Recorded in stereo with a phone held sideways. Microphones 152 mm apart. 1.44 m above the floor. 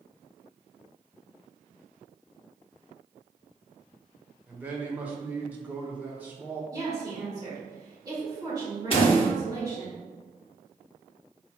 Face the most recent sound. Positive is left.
turn(degrees=40)  # may be behind; listen again after turning